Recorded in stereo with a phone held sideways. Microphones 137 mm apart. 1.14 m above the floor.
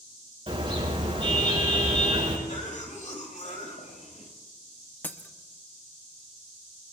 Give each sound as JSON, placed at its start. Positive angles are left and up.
{"t": 0.5, "sound": "a car horn", "side_deg": -45, "distance_m": 6.0}
{"t": 2.5, "sound": "a cough", "side_deg": 65, "distance_m": 5.5}
{"t": 5.0, "sound": "breaking glass", "side_deg": 15, "distance_m": 0.8}